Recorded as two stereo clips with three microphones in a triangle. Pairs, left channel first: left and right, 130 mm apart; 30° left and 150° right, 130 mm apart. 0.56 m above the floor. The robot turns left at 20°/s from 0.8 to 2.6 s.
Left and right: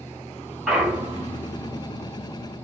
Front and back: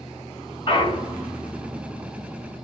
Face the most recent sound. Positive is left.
turn(degrees=-40)